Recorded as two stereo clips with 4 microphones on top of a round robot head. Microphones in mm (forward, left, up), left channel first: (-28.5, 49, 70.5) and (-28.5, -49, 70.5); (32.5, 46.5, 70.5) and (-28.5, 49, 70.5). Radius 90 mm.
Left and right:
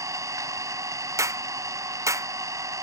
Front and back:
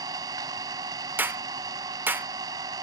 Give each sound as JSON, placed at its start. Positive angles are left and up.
{"t": 0.0, "sound": "an engine running", "azimuth_deg": -150}
{"t": 1.2, "sound": "a clap", "azimuth_deg": -140}